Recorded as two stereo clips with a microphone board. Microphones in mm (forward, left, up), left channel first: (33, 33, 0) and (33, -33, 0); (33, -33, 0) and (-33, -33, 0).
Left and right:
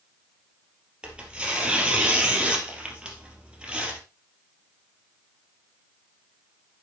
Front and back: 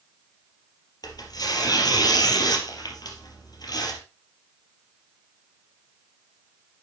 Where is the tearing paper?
15° right, 3.5 m.